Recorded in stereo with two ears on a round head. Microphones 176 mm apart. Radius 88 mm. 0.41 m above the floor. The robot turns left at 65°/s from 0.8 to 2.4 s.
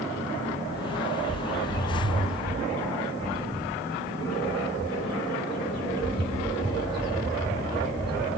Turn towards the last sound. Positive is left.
turn(degrees=-155)